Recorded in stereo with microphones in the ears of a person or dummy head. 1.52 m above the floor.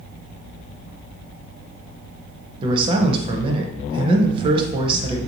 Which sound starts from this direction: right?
A man speaking, at 2.6 s.